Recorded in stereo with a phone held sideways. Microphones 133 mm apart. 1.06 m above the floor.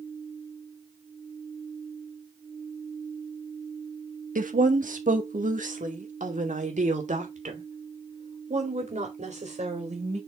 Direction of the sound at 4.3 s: 85° right.